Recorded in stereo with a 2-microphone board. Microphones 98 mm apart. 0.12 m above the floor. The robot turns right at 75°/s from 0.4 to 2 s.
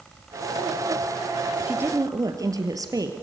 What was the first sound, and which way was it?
A woman speaking, 15° right (ahead or behind).